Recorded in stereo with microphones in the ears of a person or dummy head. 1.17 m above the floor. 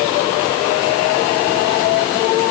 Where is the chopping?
I don't hear chopping.